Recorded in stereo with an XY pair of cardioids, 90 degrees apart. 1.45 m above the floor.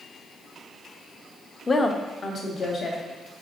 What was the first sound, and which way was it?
A woman speaking, 30° left.